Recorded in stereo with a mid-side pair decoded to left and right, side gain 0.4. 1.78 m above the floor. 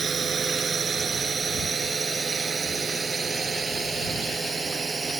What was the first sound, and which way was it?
A drone, 45° right.